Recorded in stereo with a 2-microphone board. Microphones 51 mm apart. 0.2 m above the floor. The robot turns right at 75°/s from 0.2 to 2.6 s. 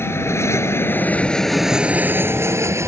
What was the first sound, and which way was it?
An aircraft, 55° left (ahead or behind).